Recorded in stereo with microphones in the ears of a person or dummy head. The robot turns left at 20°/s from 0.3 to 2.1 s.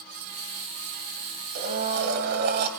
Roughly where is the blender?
Right.